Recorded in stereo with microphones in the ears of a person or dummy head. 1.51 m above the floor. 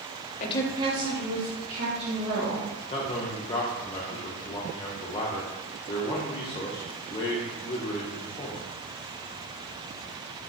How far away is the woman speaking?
About 0.6 m.